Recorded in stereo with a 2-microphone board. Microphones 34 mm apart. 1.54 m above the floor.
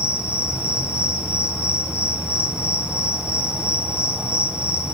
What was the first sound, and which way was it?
An insect, 30° right (ahead or behind).